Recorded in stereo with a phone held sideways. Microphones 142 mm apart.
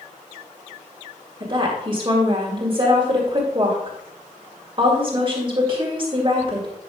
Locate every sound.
1.4 s a woman speaking: 35° right (ahead or behind), 2 m